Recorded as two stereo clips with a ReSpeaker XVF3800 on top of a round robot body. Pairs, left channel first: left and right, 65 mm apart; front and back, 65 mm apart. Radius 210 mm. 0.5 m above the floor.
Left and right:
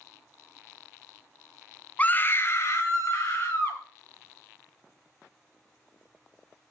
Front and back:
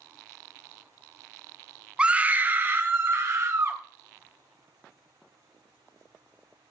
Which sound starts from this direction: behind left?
A scream, at 2.0 s.